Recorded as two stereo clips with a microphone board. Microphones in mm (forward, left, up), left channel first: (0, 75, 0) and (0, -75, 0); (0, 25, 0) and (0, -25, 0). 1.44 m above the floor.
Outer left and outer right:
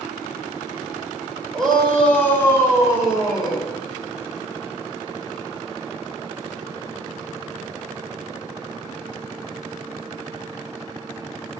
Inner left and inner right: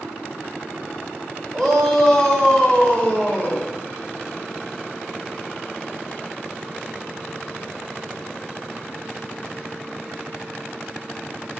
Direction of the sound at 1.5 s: 5° left (ahead or behind).